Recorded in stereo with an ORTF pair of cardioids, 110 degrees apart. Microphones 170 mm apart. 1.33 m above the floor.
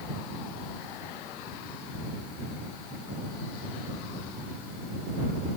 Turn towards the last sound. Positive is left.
No sound to turn to.